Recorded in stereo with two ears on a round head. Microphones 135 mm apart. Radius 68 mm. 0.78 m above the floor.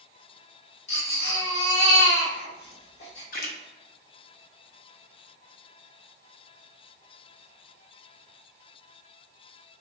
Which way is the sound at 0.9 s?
80° left.